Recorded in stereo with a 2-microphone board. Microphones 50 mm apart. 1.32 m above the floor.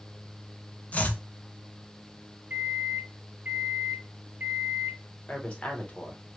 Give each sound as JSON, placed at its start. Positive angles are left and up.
{"t": 0.9, "sound": "chopping", "side_deg": 30, "distance_m": 0.6}
{"t": 2.5, "sound": "a microwave", "side_deg": -40, "distance_m": 0.7}
{"t": 5.3, "sound": "a woman speaking", "side_deg": 25, "distance_m": 1.0}